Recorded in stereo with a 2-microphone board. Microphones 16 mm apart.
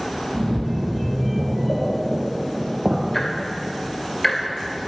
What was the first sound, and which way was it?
A splash, 80° right.